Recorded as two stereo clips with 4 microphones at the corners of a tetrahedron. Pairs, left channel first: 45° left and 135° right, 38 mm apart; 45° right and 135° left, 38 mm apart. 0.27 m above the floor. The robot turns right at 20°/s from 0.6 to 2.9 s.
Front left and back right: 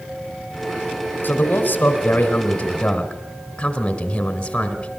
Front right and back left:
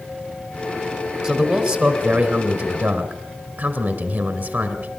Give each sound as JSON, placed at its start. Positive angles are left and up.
{"t": 1.2, "sound": "a man speaking", "azimuth_deg": 70, "distance_m": 3.0}